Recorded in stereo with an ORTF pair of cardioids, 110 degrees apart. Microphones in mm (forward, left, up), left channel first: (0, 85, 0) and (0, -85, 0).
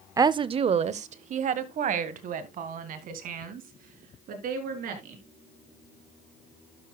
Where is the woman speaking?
20° right, 0.5 m; by 5.2 s 65° right, 4 m.